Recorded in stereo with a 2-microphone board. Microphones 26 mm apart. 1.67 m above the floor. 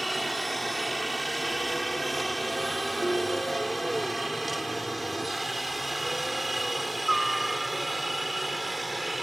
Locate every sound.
0.0 s a helicopter: centre (ahead or behind); by 9.2 s 5° right (ahead or behind)
3.0 s a ringtone: 85° left